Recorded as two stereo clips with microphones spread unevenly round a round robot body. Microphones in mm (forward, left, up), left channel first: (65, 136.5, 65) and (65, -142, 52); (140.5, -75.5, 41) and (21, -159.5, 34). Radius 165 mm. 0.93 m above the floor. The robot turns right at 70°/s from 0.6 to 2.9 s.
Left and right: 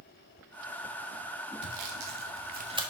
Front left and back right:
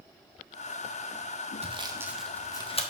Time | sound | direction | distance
1.6 | sawing | 100° right | 1.5 m